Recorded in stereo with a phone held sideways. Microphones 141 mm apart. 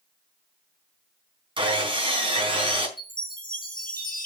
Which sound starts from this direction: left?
A chime, at 3.0 s.